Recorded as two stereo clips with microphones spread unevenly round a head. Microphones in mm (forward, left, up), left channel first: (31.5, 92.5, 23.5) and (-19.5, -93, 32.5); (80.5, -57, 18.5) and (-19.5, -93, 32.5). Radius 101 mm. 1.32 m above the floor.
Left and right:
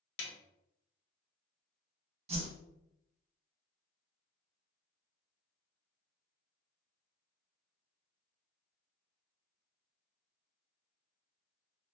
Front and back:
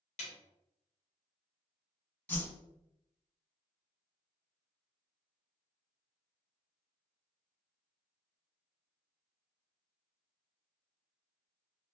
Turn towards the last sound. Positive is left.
turn(degrees=-50)